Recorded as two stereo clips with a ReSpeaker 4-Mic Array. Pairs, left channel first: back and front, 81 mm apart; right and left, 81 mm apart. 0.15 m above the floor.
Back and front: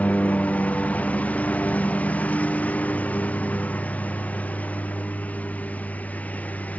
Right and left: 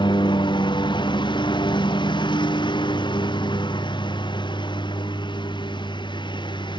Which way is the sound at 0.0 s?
105° right.